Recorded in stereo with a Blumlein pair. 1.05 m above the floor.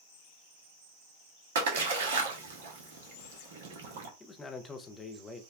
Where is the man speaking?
15° left, 0.6 m.